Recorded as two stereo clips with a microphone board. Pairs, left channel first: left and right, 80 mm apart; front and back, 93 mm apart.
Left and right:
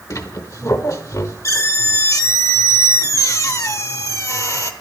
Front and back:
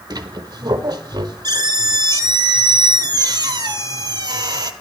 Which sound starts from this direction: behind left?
A squeak, at 0.1 s.